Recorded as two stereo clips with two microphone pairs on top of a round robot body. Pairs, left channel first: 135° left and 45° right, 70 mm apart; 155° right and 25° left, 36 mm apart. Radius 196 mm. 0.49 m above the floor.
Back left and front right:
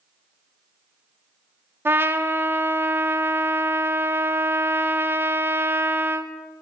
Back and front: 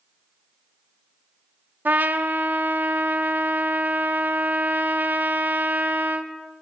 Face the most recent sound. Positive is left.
turn(degrees=0)